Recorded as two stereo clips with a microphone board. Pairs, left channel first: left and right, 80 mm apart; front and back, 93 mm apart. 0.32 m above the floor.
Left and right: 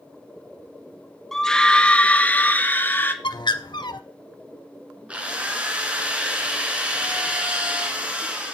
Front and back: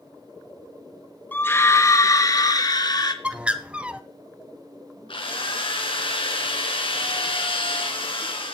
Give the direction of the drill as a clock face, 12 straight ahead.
1 o'clock.